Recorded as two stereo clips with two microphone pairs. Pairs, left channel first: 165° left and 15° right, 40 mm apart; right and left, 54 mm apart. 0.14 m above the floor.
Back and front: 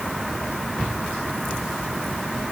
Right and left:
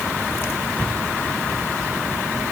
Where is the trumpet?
I don't hear a trumpet.